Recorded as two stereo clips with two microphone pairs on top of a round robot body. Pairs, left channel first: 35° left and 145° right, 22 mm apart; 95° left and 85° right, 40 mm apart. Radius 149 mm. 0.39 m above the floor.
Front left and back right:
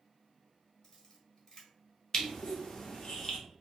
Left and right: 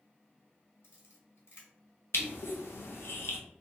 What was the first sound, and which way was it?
A camera shutter, 105° left.